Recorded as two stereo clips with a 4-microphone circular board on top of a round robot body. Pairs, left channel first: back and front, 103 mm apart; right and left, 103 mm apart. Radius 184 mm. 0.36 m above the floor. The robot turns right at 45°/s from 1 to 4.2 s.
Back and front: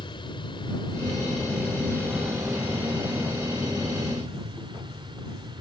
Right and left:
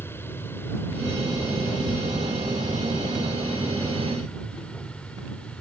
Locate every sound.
0.0 s an aircraft: 155° right; by 5.6 s 15° right